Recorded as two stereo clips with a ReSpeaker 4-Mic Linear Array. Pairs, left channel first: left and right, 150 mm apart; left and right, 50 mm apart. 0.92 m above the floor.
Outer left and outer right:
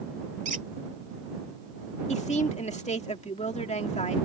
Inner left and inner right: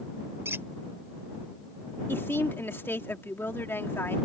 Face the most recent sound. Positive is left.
turn(degrees=50)  # may be behind; listen again after turning